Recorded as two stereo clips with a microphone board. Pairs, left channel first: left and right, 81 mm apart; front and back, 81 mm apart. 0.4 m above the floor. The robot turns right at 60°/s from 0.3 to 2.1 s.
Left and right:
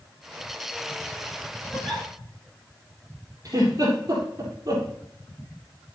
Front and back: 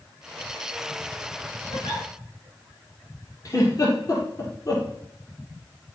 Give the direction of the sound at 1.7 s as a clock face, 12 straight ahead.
12 o'clock.